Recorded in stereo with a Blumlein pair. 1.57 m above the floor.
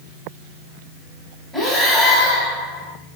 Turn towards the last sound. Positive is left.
turn(degrees=-5)